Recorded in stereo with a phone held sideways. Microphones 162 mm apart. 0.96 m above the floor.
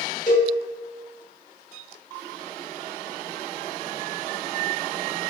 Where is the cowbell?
45° left (ahead or behind), 0.8 m.